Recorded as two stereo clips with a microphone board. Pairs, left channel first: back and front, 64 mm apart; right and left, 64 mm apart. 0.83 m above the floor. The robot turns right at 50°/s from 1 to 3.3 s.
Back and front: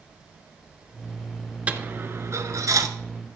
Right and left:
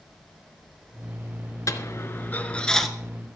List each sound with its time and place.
1.7 s a dropped coin: 65° right, 1.4 m; by 2.9 s 5° right, 1.4 m